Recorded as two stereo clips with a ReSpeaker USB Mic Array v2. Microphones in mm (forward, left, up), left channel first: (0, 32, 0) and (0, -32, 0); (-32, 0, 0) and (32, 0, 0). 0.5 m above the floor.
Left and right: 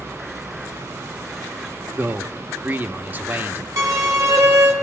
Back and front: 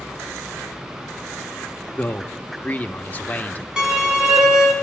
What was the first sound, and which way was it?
A man speaking, 130° right.